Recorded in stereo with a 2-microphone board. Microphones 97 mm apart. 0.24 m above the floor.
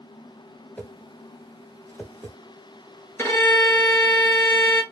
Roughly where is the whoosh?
Centre.